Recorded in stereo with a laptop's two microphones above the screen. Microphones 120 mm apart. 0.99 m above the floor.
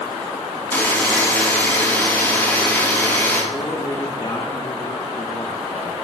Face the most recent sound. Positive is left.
turn(degrees=40)  # may be behind; listen again after turning